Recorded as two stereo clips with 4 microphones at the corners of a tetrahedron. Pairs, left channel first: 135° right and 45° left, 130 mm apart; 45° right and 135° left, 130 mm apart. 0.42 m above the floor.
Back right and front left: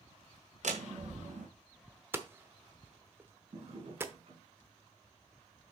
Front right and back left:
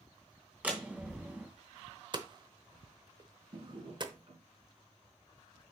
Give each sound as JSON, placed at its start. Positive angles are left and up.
{"t": 0.6, "sound": "a door slam", "azimuth_deg": 55, "distance_m": 2.0}
{"t": 2.1, "sound": "hammering", "azimuth_deg": 110, "distance_m": 0.9}
{"t": 3.5, "sound": "a drawer", "azimuth_deg": 85, "distance_m": 3.0}